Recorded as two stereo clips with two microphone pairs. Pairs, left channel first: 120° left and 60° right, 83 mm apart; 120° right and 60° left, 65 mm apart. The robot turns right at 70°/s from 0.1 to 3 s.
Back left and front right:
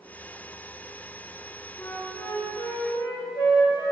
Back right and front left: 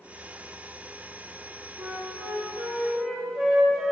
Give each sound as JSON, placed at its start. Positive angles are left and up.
{"t": 1.8, "sound": "a flute", "azimuth_deg": 45, "distance_m": 5.0}